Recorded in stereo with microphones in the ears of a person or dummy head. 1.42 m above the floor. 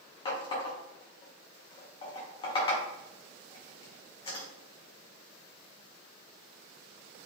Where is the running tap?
35° left (ahead or behind), 0.8 m.